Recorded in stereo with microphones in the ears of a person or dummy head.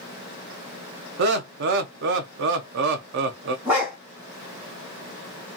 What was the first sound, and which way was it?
Laughter, 60° right (ahead or behind).